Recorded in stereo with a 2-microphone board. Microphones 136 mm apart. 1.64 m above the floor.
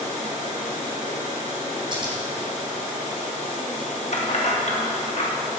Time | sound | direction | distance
1.9 | scissors | 35° right (ahead or behind) | 2 m
4.1 | keys jangling | 55° left (ahead or behind) | 1.6 m